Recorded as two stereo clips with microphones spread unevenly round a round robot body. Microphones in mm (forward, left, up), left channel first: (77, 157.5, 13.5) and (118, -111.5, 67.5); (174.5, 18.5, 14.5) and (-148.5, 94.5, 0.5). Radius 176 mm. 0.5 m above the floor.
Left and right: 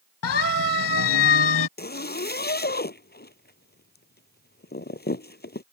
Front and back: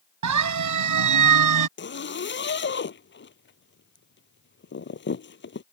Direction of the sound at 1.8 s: 45° left.